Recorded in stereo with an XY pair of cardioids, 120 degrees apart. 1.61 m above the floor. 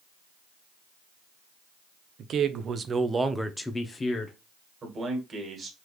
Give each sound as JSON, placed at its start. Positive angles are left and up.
{"t": 2.2, "sound": "a man speaking", "azimuth_deg": -60, "distance_m": 0.8}
{"t": 4.8, "sound": "a man speaking", "azimuth_deg": -30, "distance_m": 1.8}